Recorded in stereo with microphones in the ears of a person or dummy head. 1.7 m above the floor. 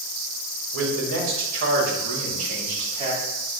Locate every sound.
0.7 s a man speaking: 75° right (ahead or behind), 1.6 m; by 3.2 s 40° right (ahead or behind), 2 m